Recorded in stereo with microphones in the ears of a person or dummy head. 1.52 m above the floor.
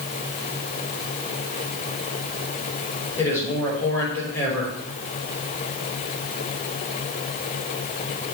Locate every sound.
3.2 s a man speaking: 15° left (ahead or behind), 5.5 m